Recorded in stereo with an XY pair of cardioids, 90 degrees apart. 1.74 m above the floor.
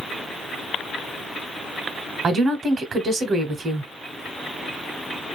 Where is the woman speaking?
60° right, 0.7 m.